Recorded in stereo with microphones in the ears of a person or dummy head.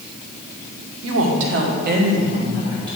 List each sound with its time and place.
1.0 s a woman speaking: 80° right, 1.2 m; by 3.0 s 25° right (ahead or behind), 1.6 m